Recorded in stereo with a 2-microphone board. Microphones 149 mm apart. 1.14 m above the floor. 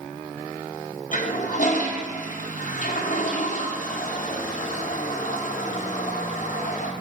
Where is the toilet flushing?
60° left (ahead or behind), 0.9 m.